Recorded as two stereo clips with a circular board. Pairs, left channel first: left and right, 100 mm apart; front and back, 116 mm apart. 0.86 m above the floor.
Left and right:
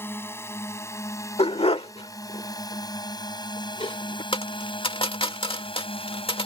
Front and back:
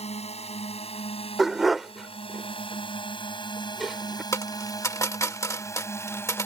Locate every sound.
0.0 s a drone: 25° left; by 6.5 s 70° left
1.4 s a dog barking: 90° left
4.3 s a dropped coin: 65° left